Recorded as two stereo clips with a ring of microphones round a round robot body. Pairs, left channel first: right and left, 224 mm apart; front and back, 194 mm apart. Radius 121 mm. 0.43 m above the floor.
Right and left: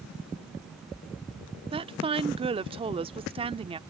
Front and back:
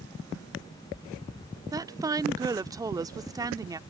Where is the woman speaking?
125° left.